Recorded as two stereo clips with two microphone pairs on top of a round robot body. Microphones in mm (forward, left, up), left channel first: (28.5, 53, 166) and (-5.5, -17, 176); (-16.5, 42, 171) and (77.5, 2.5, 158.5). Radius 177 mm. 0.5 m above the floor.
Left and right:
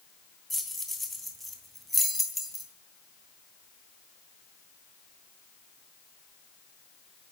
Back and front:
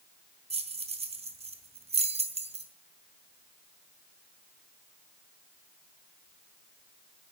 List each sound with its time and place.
0.5 s keys jangling: 25° right, 3 m